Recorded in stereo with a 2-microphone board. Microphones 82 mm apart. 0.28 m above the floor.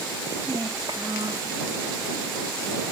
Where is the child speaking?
55° right (ahead or behind); by 1.6 s 50° right (ahead or behind).